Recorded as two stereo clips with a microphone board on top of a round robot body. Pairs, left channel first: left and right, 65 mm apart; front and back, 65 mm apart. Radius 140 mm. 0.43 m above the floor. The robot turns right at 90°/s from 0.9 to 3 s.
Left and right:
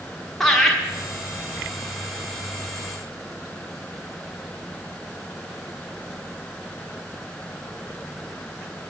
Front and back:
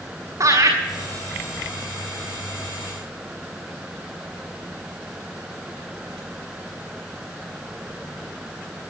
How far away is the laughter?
About 1.6 m.